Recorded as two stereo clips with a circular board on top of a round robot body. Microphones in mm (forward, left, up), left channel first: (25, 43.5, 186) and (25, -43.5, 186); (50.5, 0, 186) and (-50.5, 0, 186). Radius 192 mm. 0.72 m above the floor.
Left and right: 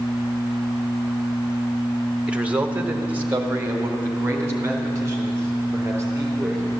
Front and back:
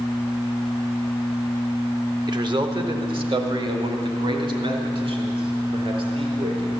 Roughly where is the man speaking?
Behind.